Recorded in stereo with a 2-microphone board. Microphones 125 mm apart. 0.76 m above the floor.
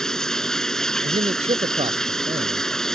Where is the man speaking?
55° right (ahead or behind).